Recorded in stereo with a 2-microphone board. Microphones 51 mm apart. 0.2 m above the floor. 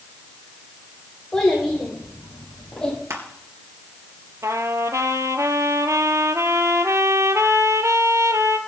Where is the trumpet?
80° right, 0.9 m.